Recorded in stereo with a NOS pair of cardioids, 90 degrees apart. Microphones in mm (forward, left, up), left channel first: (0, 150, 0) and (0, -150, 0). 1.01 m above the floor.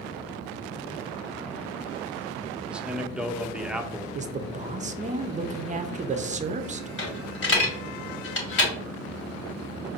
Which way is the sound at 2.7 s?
5° right.